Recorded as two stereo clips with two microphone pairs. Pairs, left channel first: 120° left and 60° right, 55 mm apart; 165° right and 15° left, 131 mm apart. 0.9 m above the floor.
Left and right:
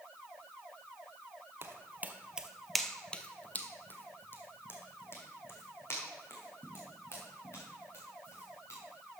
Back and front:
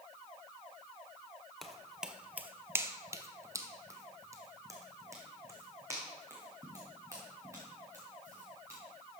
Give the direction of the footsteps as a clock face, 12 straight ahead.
3 o'clock.